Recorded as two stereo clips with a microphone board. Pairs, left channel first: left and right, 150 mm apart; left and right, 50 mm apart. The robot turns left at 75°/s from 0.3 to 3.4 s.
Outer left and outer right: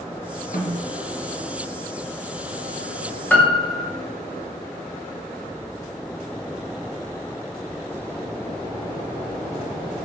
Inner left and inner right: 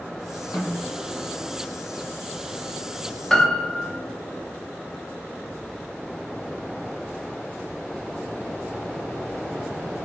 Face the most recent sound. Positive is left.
turn(degrees=15)  # may be behind; listen again after turning